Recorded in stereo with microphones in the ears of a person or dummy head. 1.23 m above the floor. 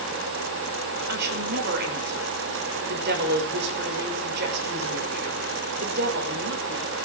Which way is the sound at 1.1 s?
60° right (ahead or behind).